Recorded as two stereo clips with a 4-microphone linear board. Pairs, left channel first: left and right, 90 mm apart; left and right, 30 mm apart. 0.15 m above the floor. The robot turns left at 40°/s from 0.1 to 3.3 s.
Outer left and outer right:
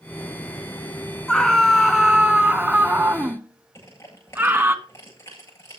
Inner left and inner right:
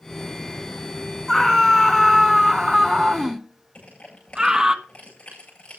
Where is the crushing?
30° left (ahead or behind), 10 m.